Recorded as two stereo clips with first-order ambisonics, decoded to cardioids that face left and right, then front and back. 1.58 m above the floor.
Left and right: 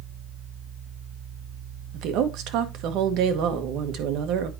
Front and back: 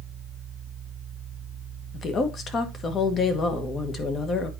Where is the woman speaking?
60° right, 1.2 m.